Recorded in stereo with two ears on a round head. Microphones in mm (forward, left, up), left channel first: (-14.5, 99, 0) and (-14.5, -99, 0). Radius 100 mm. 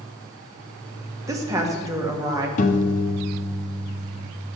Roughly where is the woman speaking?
Centre.